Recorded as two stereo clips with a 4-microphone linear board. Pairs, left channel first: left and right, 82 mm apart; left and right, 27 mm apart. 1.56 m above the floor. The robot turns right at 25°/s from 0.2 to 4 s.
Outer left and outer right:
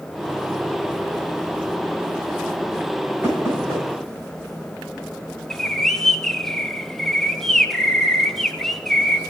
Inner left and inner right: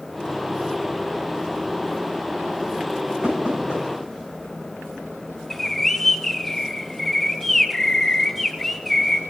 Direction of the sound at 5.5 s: 5° left (ahead or behind).